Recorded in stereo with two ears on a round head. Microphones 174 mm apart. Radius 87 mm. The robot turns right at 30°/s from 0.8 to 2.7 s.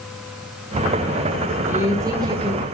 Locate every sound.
1.7 s a woman speaking: 10° right (ahead or behind), 1.5 m; by 2.6 s 25° right (ahead or behind), 1.5 m